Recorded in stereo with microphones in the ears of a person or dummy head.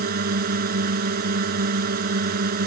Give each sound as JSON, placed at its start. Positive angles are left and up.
{"t": 0.0, "sound": "a drone", "side_deg": -55}